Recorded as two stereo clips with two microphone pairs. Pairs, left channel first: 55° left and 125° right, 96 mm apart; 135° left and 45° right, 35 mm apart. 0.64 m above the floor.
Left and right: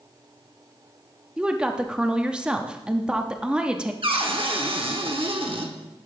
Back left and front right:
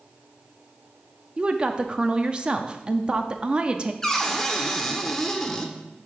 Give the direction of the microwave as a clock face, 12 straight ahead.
No microwave in this recording.